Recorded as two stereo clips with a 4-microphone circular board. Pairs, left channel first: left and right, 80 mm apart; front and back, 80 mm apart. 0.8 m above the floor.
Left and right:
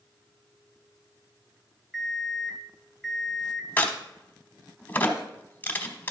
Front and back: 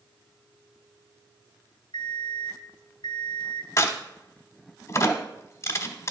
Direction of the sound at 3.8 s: 30° left.